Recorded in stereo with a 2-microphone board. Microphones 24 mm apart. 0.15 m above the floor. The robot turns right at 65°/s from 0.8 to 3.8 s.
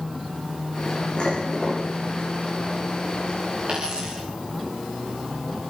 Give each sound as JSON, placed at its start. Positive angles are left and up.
{"t": 1.2, "sound": "dishes clattering", "azimuth_deg": 130, "distance_m": 8.5}
{"t": 3.7, "sound": "a dropped coin", "side_deg": -50, "distance_m": 7.5}